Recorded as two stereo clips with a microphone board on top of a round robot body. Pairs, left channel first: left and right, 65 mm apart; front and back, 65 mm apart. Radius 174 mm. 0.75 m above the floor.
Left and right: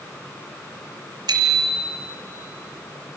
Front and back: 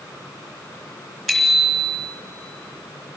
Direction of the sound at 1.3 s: 85° right.